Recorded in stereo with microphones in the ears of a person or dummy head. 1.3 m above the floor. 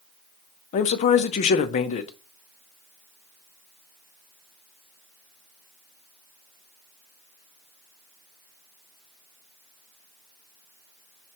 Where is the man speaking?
35° left (ahead or behind), 0.6 m.